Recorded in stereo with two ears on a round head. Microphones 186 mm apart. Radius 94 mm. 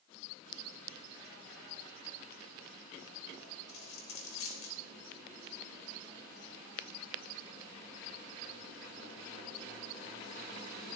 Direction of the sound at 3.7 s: 75° left (ahead or behind).